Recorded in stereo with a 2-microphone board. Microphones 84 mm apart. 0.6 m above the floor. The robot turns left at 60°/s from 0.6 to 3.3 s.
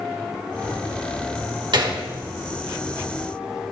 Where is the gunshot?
65° right (ahead or behind), 1.7 m; by 2.0 s 55° right (ahead or behind), 1.7 m.